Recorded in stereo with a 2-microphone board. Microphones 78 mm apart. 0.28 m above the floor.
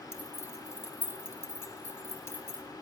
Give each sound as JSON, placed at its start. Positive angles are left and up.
{"t": 0.1, "sound": "keys jangling", "side_deg": 30, "distance_m": 0.7}